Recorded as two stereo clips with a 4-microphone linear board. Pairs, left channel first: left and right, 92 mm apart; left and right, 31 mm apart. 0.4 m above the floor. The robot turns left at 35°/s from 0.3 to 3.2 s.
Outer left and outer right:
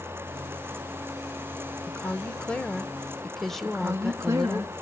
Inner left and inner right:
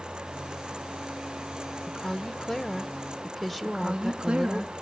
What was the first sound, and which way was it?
A woman speaking, 20° left (ahead or behind).